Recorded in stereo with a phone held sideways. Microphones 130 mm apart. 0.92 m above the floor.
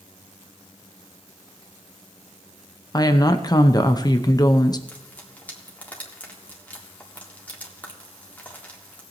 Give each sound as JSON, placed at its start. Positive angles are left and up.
{"t": 2.9, "sound": "a woman speaking", "side_deg": 30, "distance_m": 0.8}
{"t": 4.9, "sound": "frying", "side_deg": 10, "distance_m": 1.9}